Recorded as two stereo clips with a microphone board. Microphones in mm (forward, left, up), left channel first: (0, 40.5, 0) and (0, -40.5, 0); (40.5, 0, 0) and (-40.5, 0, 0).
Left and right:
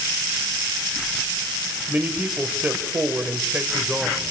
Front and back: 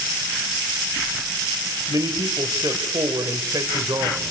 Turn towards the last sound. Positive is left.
turn(degrees=-160)